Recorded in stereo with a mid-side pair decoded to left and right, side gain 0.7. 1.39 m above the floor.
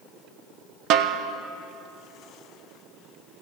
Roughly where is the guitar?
No guitar in this recording.